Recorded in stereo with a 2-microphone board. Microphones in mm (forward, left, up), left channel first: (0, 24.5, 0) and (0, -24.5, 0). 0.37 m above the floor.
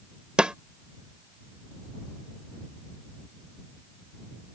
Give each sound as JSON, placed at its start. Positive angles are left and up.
{"t": 0.4, "sound": "a snare drum", "side_deg": -20}